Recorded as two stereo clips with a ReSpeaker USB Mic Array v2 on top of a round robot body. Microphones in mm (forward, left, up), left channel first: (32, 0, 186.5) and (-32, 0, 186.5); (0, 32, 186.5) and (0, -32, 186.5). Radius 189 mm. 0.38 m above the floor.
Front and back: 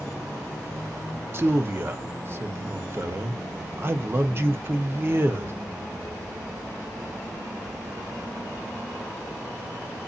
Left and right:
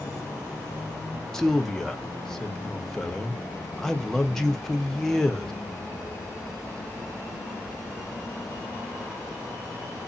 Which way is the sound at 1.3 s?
170° left.